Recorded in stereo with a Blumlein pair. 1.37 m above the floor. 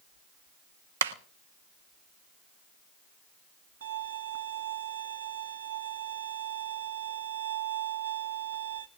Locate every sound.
1.0 s a clap: 65° right, 1.2 m
3.8 s a violin: 70° right, 1.5 m